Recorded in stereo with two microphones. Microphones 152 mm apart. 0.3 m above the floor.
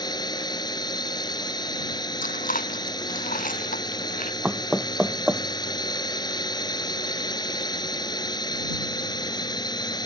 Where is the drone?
30° left (ahead or behind).